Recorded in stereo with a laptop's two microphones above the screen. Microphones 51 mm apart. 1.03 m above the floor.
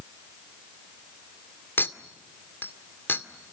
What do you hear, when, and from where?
1.8 s a clink: 45° left (ahead or behind), 1.8 m